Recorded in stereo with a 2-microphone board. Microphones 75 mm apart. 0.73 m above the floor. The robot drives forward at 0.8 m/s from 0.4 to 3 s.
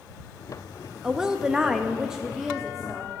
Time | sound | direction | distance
1.0 | a woman speaking | 5° right (ahead or behind) | 0.8 m